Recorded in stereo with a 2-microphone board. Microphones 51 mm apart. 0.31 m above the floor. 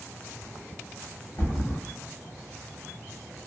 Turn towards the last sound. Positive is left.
turn(degrees=60)  # may be behind; listen again after turning